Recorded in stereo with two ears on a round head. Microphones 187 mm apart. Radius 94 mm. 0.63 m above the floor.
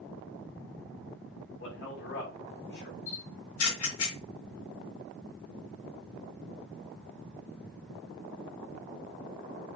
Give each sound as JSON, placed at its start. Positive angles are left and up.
{"t": 1.6, "sound": "a man speaking", "side_deg": 55, "distance_m": 5.5}
{"t": 3.1, "sound": "a camera shutter", "side_deg": 75, "distance_m": 4.5}